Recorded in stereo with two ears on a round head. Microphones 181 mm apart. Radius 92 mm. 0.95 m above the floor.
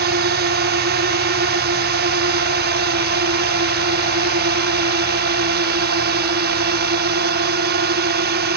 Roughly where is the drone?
Right.